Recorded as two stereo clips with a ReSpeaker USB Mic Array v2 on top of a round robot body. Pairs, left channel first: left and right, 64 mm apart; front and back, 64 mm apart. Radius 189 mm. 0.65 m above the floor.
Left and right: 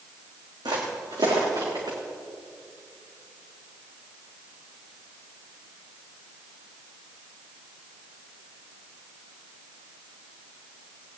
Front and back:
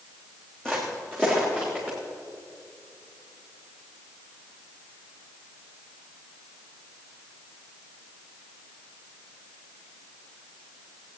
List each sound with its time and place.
0.7 s footsteps: 75° right, 3 m